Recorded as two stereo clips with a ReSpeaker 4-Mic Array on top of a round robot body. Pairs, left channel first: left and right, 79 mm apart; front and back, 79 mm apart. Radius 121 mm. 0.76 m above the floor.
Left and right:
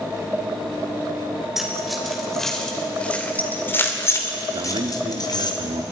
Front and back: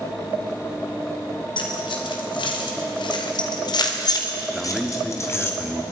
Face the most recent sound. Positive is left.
turn(degrees=-95)